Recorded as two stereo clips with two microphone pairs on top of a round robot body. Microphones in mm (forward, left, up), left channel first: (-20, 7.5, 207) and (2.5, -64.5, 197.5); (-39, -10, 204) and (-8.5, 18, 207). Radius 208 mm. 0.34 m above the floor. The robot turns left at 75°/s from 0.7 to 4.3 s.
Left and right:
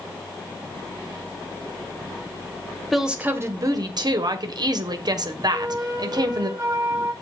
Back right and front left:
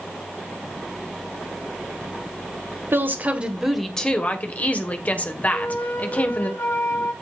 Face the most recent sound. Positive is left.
turn(degrees=-130)